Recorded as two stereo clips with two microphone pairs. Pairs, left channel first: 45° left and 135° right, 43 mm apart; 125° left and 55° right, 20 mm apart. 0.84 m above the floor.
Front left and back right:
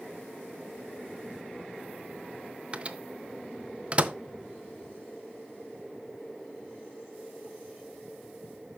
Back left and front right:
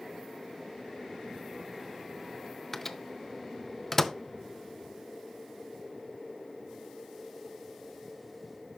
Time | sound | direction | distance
2.7 | a microwave | 170° right | 0.5 m